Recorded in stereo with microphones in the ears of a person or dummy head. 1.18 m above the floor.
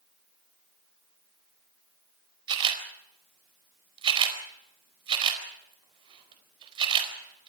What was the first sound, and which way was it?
A camera shutter, 30° right (ahead or behind).